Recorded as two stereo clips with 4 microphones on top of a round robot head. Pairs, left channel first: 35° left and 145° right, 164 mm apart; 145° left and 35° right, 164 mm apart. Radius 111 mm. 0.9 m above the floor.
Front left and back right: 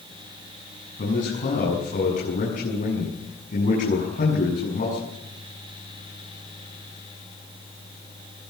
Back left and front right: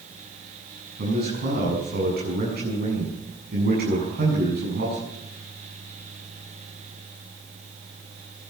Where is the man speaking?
5° right, 7.5 m.